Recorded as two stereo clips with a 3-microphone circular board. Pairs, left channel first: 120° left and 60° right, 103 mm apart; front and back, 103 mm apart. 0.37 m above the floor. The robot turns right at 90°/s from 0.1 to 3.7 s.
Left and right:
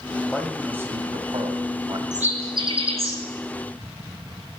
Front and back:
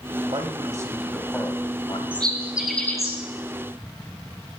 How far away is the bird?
About 2.5 m.